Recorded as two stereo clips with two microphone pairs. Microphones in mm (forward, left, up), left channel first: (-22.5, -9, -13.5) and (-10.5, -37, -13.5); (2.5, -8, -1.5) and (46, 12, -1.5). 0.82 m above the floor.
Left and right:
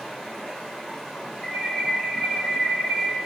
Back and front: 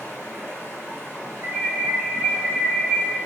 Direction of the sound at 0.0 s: 165° right.